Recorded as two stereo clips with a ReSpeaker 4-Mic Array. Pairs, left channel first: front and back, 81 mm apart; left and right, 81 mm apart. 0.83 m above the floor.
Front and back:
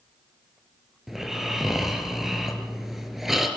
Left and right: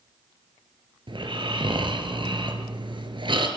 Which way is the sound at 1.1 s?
95° right.